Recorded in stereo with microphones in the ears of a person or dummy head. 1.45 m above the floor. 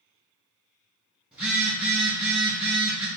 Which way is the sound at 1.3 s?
5° right (ahead or behind).